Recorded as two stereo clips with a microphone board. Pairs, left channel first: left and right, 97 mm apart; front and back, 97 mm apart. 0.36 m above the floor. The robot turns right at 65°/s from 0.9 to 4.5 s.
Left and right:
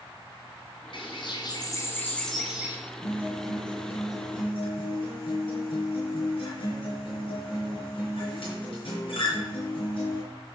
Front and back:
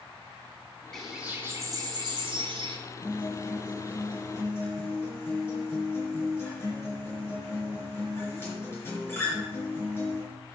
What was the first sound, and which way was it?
A bird, 85° left.